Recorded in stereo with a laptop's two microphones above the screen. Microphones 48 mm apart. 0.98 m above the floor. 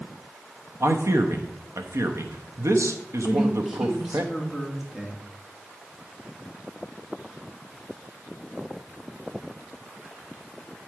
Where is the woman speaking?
10° right (ahead or behind), 2.5 m.